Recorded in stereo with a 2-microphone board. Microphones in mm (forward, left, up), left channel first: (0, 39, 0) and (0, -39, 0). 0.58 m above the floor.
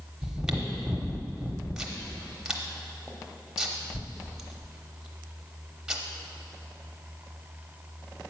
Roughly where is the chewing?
Centre.